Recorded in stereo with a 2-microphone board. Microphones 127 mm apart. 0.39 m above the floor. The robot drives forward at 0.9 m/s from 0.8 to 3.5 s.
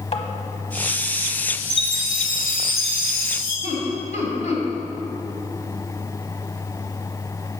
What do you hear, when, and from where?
0.1 s tapping: 45° left (ahead or behind), 0.9 m
1.7 s a chime: centre (ahead or behind), 3 m
3.6 s laughter: 60° left (ahead or behind), 2.0 m